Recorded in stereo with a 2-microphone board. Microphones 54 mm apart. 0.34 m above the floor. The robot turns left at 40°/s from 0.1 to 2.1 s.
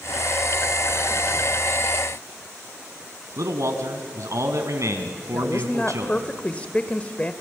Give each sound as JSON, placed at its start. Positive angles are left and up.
{"t": 3.4, "sound": "a man speaking", "side_deg": -70, "distance_m": 2.5}
{"t": 5.3, "sound": "a woman speaking", "side_deg": 25, "distance_m": 1.1}